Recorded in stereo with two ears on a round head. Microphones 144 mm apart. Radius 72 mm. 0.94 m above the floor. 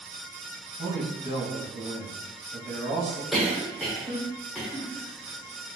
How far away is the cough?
About 1.0 m.